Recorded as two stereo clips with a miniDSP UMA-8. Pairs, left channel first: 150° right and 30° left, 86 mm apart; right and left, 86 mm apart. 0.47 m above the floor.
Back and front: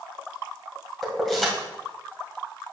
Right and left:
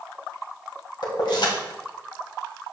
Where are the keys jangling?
65° right, 2 m.